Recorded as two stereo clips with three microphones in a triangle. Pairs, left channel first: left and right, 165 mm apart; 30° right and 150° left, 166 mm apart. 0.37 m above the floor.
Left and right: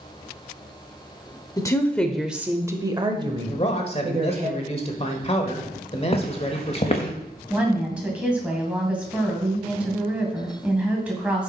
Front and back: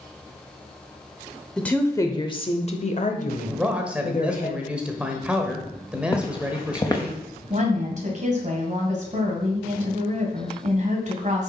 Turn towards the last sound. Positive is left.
turn(degrees=-170)